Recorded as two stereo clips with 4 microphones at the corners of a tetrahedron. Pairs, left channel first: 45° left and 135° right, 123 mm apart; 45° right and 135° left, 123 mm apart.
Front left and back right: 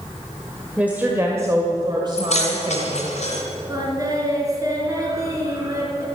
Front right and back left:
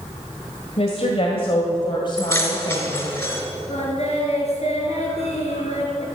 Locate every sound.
0.8 s a woman speaking: 55° right, 1.7 m; by 3.2 s 100° right, 2.5 m
2.2 s keys jangling: 20° left, 3 m
3.7 s singing: 75° right, 3.5 m